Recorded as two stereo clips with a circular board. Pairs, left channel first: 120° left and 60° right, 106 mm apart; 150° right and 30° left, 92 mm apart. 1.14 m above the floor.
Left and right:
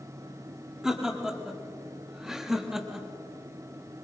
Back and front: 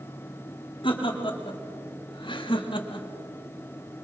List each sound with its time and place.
0.8 s laughter: 145° right, 3.5 m